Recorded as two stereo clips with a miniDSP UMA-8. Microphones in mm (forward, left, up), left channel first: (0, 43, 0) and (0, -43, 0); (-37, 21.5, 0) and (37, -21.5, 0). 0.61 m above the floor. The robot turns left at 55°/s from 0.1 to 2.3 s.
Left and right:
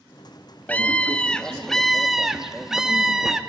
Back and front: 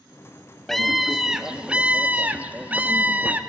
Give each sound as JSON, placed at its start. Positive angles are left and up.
{"t": 0.7, "sound": "a scream", "azimuth_deg": 70, "distance_m": 0.9}